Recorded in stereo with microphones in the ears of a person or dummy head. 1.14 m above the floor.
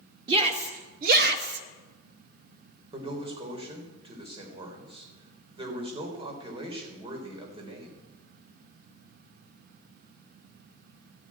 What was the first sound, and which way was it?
A shout, 35° right (ahead or behind).